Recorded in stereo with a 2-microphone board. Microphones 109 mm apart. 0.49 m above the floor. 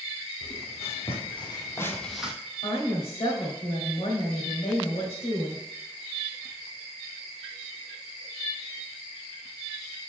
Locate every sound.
0.4 s footsteps: 75° left (ahead or behind), 1.9 m; by 2.3 s 10° right (ahead or behind), 1.0 m
2.6 s a woman speaking: 65° left (ahead or behind), 1.8 m